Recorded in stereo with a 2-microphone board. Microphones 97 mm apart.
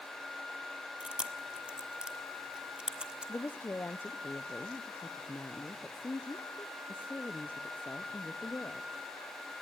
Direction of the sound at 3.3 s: 20° left (ahead or behind).